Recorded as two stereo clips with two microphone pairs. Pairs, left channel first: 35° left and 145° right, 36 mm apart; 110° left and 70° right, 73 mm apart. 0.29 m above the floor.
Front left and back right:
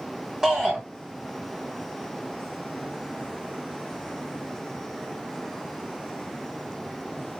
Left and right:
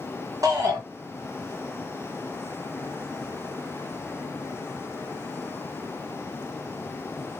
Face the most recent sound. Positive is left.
turn(degrees=-75)